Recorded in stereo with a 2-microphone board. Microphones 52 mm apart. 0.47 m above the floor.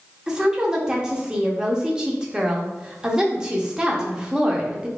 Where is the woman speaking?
15° right (ahead or behind), 0.8 m.